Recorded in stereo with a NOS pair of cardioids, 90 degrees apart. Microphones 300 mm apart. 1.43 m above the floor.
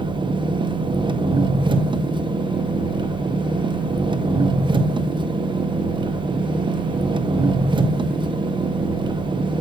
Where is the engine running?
15° right, 0.8 m.